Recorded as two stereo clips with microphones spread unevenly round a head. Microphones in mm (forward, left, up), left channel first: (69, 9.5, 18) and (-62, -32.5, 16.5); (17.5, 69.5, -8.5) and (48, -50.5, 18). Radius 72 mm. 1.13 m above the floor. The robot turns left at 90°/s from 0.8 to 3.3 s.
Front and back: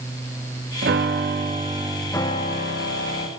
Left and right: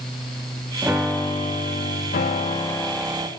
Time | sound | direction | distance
0.8 | a piano | 150° right | 1.5 m